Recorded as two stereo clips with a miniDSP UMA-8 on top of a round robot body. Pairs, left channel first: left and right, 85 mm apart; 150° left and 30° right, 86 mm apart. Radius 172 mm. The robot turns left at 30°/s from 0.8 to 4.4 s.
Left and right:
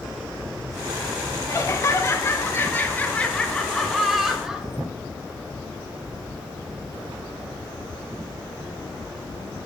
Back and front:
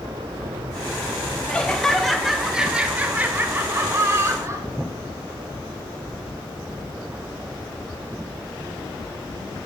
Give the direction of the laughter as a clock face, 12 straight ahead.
9 o'clock.